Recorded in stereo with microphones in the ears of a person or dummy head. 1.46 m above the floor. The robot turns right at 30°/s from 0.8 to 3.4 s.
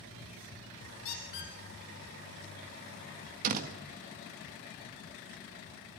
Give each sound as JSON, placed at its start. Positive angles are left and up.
{"t": 1.1, "sound": "a squeak", "side_deg": 65, "distance_m": 3.0}
{"t": 3.4, "sound": "a door slam", "side_deg": -45, "distance_m": 1.5}